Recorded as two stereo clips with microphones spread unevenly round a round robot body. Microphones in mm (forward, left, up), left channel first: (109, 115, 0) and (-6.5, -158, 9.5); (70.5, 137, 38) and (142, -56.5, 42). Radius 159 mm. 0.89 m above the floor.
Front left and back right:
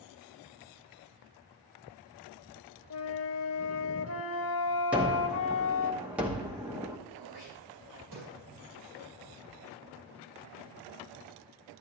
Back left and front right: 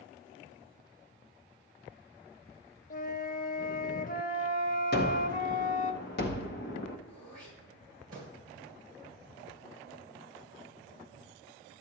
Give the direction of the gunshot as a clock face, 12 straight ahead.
7 o'clock.